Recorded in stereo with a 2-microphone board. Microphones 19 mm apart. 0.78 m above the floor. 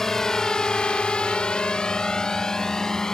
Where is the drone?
25° left (ahead or behind); by 3.1 s 35° left (ahead or behind).